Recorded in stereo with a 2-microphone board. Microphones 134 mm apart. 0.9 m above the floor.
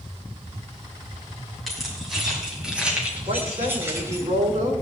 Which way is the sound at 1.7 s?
Centre (ahead or behind).